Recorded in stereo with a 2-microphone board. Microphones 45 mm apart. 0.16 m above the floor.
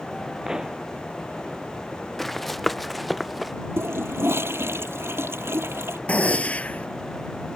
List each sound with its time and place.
0.5 s a pop: 15° right (ahead or behind)
2.2 s running footsteps: 5° left (ahead or behind); by 3.5 s 5° right (ahead or behind)
3.8 s a toilet flushing: 65° right (ahead or behind)
6.1 s a gunshot: 30° left (ahead or behind)